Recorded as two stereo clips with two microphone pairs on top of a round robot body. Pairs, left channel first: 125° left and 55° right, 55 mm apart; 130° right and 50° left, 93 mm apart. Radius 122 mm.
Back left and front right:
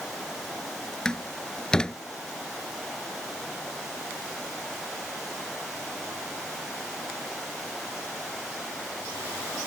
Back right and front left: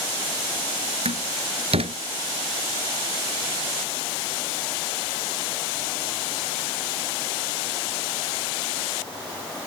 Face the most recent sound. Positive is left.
turn(degrees=50)